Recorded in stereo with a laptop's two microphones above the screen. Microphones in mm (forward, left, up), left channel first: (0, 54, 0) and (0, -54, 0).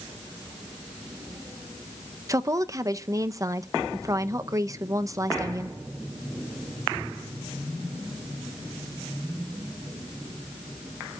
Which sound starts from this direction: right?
A woman speaking, at 2.3 s.